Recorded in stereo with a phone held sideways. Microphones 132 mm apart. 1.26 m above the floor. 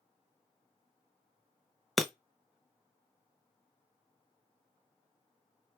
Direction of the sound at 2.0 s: Centre (ahead or behind).